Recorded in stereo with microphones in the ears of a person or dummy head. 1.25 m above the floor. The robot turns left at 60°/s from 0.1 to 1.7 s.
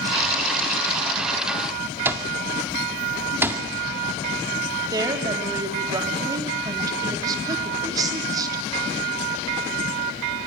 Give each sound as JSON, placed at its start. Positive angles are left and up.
{"t": 2.0, "sound": "an alarm clock", "side_deg": -10, "distance_m": 1.8}
{"t": 4.9, "sound": "a woman speaking", "side_deg": -25, "distance_m": 3.5}